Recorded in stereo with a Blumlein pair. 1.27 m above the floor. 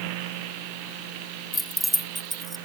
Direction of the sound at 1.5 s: 5° left.